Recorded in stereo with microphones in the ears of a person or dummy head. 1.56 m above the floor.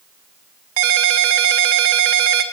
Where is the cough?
I don't hear a cough.